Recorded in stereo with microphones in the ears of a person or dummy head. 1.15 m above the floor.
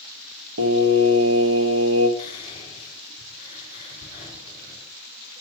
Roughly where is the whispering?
Left.